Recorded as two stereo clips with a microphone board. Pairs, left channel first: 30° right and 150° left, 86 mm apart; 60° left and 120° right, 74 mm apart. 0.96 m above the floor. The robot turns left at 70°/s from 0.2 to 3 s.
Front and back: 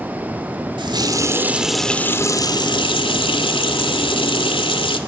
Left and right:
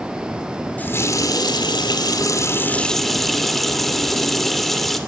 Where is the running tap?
130° left, 1.9 m; by 5.0 s 25° right, 1.9 m.